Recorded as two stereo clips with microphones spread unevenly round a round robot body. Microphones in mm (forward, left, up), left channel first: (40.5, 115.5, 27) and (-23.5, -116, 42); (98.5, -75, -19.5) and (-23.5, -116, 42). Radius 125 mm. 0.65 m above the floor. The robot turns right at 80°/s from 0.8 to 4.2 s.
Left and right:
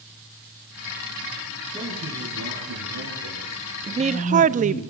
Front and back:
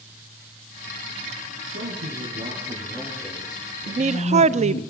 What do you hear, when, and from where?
1.7 s a man speaking: 170° left, 7.5 m; by 4.9 s 10° left, 7.5 m
3.9 s a woman speaking: 155° right, 0.5 m; by 4.8 s 125° right, 0.5 m